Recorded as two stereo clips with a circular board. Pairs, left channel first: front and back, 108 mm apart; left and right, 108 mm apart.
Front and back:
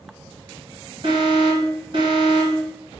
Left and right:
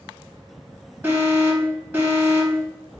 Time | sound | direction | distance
1.0 | an alarm | 160° right | 1.5 m